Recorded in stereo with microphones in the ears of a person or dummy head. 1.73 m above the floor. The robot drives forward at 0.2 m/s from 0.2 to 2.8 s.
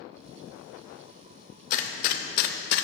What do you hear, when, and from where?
1.7 s a gunshot: 45° left (ahead or behind), 0.6 m; by 2.8 s 55° left (ahead or behind), 0.5 m